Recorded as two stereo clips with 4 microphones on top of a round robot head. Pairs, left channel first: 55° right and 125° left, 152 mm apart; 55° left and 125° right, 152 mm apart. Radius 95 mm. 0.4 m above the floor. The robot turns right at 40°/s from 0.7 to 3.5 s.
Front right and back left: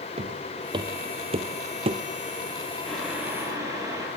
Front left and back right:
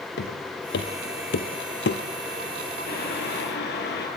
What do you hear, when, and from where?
0.2 s footsteps: 70° left, 3 m; by 2.0 s 65° left, 1.8 m
2.9 s boiling: 30° left, 6.5 m; by 4.1 s 55° left, 6.5 m